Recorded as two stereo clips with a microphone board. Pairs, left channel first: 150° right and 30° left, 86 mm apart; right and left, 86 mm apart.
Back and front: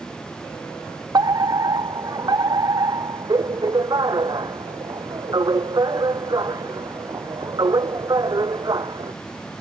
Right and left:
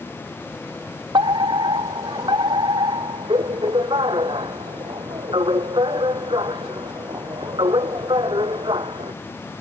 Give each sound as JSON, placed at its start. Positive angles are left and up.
{"t": 1.1, "sound": "a fire alarm", "azimuth_deg": 70}